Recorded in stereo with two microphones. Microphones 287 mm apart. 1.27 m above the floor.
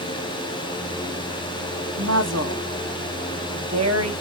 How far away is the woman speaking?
About 1.0 m.